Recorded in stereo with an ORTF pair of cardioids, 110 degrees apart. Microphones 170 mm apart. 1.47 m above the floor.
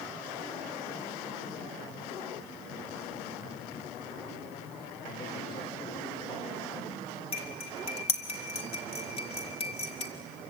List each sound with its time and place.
5.0 s a man speaking: 30° left, 5 m
7.3 s cutlery clinking: 35° left, 2.5 m